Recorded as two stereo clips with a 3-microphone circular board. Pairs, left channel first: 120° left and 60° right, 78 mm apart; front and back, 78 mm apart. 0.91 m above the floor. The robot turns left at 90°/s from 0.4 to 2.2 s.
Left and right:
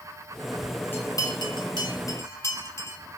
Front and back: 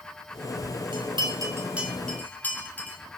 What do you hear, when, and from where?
0.9 s a bell: 175° right, 3 m; by 3.0 s 70° left, 3 m